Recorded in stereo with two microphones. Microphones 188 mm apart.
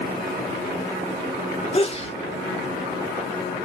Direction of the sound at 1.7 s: 35° left (ahead or behind).